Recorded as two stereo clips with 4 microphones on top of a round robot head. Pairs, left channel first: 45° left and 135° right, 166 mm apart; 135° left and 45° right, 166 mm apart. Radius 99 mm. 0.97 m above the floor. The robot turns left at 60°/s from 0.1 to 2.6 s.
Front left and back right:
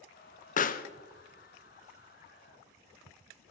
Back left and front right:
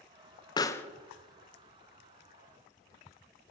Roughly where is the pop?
Left.